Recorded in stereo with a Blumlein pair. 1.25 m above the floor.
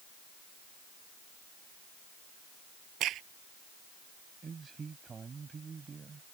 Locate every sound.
3.0 s a crack: 35° right
4.4 s a man speaking: 15° right